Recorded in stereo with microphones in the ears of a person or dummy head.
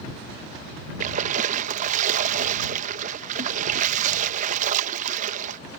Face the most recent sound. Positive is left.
turn(degrees=-45)  # may be behind; listen again after turning